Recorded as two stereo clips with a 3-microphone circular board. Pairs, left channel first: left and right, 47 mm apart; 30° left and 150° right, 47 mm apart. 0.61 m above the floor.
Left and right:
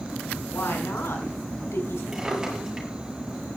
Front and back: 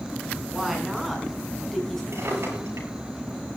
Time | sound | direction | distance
0.5 | a woman speaking | 125° left | 6.5 m
2.1 | a drawer | 175° right | 8.5 m